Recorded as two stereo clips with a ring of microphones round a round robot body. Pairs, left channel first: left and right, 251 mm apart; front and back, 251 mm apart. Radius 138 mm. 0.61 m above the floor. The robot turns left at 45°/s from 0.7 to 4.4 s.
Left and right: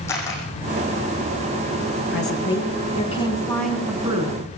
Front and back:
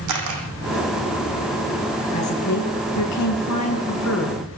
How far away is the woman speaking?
About 6.5 m.